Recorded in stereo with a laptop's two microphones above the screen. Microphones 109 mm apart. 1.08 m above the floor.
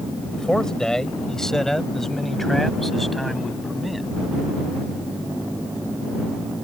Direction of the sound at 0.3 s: 5° left (ahead or behind).